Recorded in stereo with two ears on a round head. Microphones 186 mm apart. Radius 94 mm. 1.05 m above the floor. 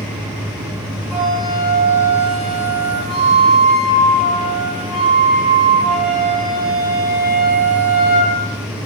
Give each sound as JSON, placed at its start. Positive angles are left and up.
{"t": 1.1, "sound": "a flute", "side_deg": -20, "distance_m": 1.1}